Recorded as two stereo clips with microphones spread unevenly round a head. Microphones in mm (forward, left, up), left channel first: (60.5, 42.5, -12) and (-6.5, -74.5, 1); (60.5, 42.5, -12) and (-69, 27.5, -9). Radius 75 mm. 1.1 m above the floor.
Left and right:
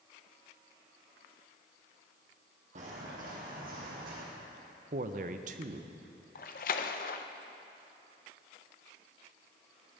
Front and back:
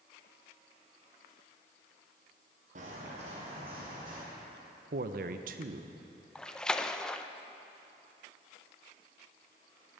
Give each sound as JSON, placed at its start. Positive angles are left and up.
{"t": 2.8, "sound": "footsteps", "azimuth_deg": -145, "distance_m": 2.5}
{"t": 4.9, "sound": "a man speaking", "azimuth_deg": -160, "distance_m": 0.6}
{"t": 6.3, "sound": "a splash", "azimuth_deg": 90, "distance_m": 0.5}